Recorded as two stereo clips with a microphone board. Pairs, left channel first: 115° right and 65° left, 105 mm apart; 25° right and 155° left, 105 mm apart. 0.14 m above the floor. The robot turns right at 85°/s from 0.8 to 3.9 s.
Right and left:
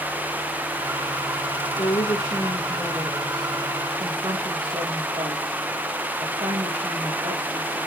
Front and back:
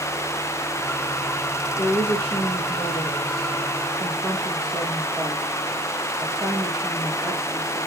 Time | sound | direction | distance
1.8 | a woman speaking | 105° right | 3.5 m